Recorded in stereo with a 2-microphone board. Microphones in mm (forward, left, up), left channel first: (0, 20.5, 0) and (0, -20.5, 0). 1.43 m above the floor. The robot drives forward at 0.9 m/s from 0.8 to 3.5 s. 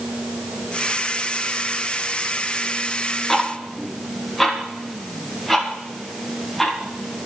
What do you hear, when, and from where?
3.3 s ticking: centre (ahead or behind), 1.1 m